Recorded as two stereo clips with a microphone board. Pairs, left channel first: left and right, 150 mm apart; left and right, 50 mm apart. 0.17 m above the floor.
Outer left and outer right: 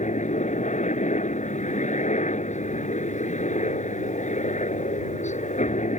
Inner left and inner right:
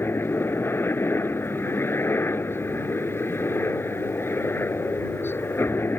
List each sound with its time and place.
0.0 s a helicopter: 50° left (ahead or behind)